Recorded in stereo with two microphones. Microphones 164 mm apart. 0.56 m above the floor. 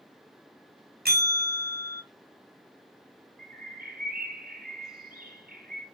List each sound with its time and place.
1.1 s a bell: 70° right (ahead or behind), 2 m
3.4 s a bird: 65° right (ahead or behind), 3 m